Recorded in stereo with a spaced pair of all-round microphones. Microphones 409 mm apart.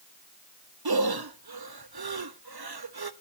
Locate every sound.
0.8 s breathing: 65° right (ahead or behind), 0.8 m